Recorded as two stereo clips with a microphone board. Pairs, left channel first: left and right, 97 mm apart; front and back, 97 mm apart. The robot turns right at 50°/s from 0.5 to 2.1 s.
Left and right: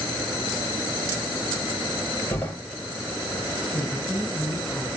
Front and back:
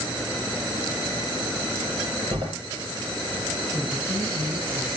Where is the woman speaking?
170° left, 5.5 m.